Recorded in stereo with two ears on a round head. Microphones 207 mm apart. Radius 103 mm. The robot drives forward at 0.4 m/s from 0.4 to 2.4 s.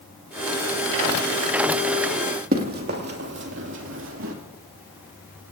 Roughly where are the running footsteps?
Right.